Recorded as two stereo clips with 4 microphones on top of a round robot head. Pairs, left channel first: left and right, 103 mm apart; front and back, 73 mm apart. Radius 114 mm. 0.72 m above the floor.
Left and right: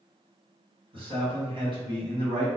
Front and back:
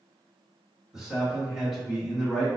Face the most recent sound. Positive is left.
turn(degrees=-95)